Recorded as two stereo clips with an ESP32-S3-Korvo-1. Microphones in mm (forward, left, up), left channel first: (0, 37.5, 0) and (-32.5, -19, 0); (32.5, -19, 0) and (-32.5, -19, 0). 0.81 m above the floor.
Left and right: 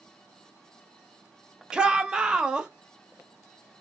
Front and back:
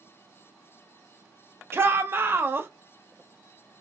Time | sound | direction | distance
1.7 | a shout | 175° left | 0.6 m